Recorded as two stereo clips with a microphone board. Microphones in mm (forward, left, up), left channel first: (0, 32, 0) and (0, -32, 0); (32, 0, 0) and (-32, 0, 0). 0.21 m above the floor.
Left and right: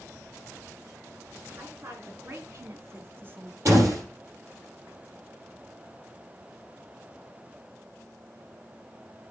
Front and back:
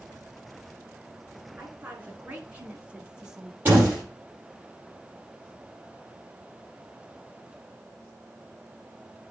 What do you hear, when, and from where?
1.6 s a woman speaking: 120° right, 2.5 m; by 3.5 s 100° right, 1.0 m
3.6 s a door slam: 120° right, 5 m